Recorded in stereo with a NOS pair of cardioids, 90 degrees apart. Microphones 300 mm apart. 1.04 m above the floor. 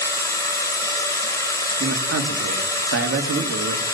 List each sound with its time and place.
0.0 s a machine running: 10° left, 4 m
1.8 s a man speaking: 50° right, 2.5 m